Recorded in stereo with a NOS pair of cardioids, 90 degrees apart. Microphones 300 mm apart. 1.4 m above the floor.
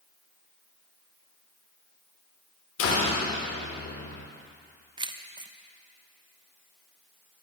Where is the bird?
I don't hear a bird.